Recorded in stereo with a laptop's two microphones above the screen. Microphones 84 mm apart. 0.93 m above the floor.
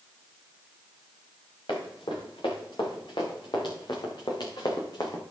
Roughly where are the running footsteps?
Left.